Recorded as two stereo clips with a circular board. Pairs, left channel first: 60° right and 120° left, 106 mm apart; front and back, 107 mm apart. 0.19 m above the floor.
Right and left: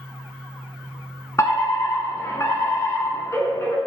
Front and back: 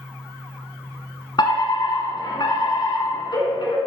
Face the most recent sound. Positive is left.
turn(degrees=-10)